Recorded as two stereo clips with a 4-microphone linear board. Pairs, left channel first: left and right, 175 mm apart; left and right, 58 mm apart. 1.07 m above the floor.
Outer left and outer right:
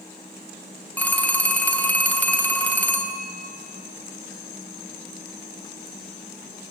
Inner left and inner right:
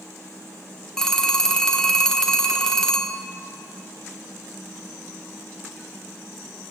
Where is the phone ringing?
10° left (ahead or behind), 0.8 m.